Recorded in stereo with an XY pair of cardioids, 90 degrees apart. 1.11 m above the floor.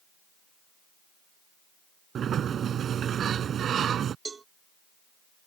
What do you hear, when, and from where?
2.1 s a sliding door: 65° right
4.2 s a cowbell: 35° right